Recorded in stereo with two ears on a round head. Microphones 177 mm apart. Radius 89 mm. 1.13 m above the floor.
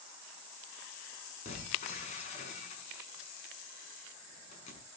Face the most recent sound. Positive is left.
turn(degrees=30)  # may be behind; listen again after turning